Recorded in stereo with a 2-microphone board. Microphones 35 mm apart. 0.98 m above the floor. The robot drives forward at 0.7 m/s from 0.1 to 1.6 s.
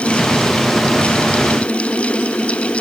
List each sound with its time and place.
Only background noise.